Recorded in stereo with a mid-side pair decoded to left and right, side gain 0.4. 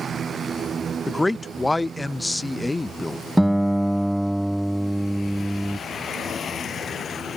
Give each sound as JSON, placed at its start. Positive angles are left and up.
{"t": 1.1, "sound": "a man speaking", "azimuth_deg": 15}
{"t": 3.4, "sound": "a guitar", "azimuth_deg": -5}